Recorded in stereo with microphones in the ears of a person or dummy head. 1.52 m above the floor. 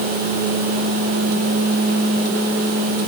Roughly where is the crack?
No crack in this recording.